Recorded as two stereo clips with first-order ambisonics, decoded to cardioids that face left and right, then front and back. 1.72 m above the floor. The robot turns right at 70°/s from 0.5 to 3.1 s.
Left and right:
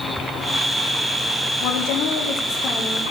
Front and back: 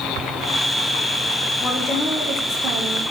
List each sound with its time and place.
1.6 s a woman speaking: 65° left, 1.3 m; by 3.0 s 165° left, 1.3 m